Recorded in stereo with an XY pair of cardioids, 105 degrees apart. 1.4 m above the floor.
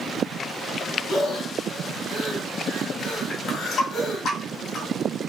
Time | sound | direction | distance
1.1 | breathing | 65° left | 2 m
3.3 | a running tap | 70° left | 2.5 m